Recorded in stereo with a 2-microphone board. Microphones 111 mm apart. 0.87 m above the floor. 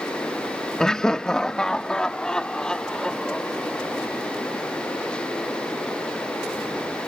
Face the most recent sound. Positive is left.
turn(degrees=5)  # may be behind; listen again after turning